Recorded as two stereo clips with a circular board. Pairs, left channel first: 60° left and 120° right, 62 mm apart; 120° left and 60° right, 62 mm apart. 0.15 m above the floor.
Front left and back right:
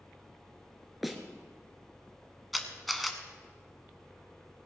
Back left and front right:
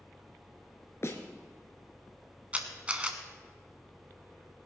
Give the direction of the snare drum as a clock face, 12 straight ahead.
7 o'clock.